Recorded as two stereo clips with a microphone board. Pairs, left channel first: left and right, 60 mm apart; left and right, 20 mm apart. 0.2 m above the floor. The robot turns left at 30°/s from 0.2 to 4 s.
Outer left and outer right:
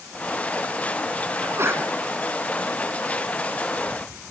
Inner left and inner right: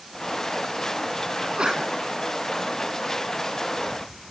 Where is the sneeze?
50° right (ahead or behind), 1.9 m; by 1.8 s 45° right (ahead or behind), 1.9 m.